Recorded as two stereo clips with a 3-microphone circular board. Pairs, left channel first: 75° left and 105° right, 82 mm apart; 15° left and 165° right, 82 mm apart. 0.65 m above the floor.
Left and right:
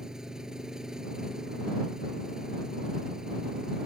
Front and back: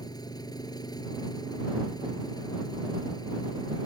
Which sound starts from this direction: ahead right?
An engine running, at 0.0 s.